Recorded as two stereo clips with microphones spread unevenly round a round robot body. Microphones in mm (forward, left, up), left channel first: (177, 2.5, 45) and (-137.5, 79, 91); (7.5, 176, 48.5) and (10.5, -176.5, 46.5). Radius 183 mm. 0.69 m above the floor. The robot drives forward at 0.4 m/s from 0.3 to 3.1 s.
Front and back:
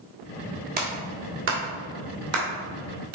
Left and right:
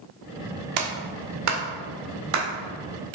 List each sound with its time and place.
0.8 s a clap: 125° right, 1.3 m; by 3.2 s 150° right, 2 m